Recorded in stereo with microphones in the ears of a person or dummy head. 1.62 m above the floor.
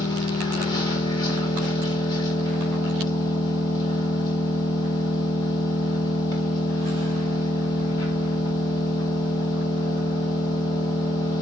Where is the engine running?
20° left (ahead or behind), 3.5 m.